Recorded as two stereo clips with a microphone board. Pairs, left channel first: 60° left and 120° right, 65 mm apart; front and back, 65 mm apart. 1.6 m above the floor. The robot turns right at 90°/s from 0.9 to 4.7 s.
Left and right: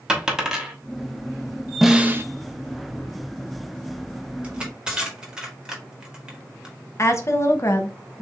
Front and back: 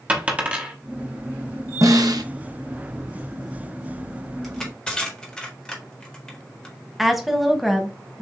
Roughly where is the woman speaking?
Left.